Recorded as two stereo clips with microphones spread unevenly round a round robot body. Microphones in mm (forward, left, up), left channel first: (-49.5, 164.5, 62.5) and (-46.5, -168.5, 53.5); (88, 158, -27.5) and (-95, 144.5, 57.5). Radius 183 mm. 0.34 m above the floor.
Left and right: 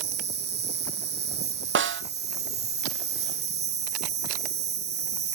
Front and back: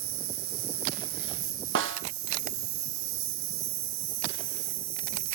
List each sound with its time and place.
0.0 s an insect: 150° right, 1.0 m
1.8 s a snare drum: 145° right, 0.7 m